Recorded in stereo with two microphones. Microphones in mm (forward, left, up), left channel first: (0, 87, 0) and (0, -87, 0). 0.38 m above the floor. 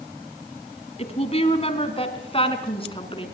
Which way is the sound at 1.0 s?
35° left (ahead or behind).